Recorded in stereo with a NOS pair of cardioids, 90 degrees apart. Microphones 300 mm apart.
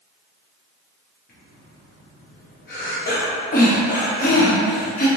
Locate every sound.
1.3 s breathing: 35° left, 1.2 m
3.1 s breathing: 30° left, 1.0 m